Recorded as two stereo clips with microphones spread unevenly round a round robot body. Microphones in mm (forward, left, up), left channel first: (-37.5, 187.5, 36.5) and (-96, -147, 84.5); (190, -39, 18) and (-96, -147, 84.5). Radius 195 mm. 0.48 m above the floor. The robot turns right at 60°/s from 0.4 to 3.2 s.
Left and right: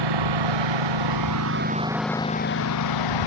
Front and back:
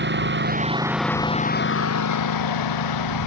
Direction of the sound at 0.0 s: 105° right.